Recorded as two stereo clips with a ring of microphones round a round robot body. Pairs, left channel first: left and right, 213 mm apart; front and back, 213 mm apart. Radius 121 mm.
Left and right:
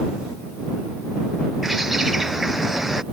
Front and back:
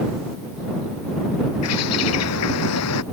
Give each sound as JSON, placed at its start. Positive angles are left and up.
{"t": 1.6, "sound": "a bird", "azimuth_deg": 0}